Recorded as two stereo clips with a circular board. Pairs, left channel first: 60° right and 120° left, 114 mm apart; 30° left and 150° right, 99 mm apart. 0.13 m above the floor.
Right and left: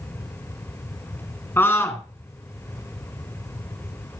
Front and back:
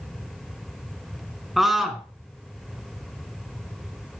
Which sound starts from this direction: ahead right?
A scream, at 1.6 s.